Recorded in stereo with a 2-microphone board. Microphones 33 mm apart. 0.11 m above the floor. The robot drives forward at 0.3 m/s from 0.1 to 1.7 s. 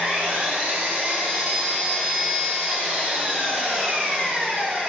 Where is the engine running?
75° right (ahead or behind), 1.5 m; by 4.9 s 65° right (ahead or behind), 1.6 m.